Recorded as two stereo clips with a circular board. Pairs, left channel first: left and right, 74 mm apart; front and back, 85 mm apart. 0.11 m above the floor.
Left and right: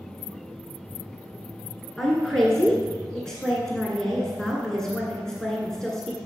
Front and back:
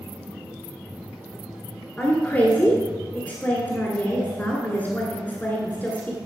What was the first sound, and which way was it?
A woman speaking, 20° left.